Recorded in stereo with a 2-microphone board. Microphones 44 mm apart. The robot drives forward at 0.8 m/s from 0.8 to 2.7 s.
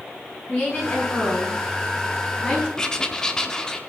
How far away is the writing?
About 1.0 m.